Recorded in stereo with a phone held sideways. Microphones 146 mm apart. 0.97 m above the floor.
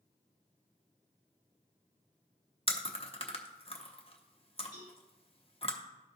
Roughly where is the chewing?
Left.